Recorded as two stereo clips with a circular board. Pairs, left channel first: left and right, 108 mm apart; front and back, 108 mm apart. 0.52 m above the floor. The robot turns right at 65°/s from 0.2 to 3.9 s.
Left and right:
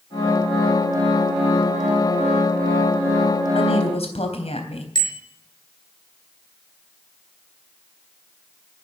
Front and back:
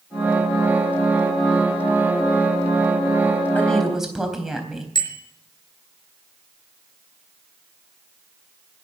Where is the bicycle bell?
45° left, 5 m.